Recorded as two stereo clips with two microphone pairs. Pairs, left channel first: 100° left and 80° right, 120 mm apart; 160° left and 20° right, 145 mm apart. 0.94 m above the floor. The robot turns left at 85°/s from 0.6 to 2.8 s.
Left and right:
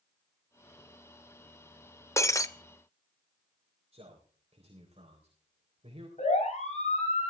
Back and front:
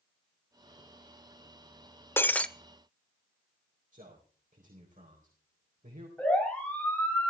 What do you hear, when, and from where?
2.2 s breaking glass: 125° left, 0.6 m; by 2.5 s 95° left, 0.6 m
3.9 s a man speaking: 45° right, 4 m
6.2 s a siren: 80° left, 8 m; by 7.3 s 85° left, 7 m